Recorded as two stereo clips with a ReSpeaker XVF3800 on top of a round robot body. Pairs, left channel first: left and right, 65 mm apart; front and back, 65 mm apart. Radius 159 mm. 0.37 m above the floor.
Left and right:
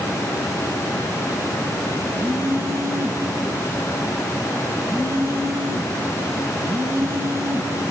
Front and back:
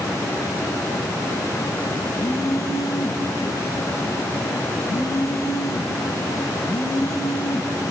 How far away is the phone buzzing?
About 1.0 m.